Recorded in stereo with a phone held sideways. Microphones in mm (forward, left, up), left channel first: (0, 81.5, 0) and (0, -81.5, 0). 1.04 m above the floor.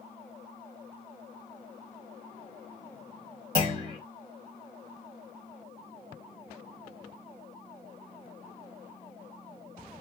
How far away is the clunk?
About 1.0 m.